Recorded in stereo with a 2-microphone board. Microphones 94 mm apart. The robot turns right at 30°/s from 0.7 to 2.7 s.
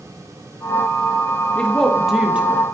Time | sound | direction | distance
1.6 | a woman speaking | 165° left | 1.5 m